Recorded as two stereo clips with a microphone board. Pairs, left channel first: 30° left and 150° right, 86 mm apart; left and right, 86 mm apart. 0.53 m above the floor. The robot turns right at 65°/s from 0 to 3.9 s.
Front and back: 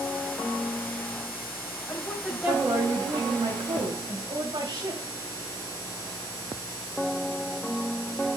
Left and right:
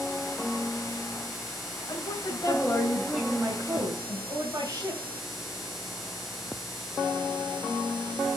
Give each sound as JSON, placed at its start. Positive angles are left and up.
{"t": 1.9, "sound": "a woman speaking", "azimuth_deg": 90, "distance_m": 2.5}